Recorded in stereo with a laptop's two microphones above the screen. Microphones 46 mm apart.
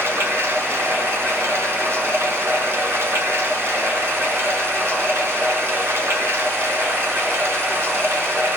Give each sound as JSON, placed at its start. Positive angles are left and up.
{"t": 0.0, "sound": "running water", "side_deg": -70, "distance_m": 1.8}